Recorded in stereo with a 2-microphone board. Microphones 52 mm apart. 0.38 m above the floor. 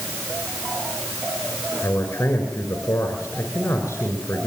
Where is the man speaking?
50° left (ahead or behind), 6.5 m.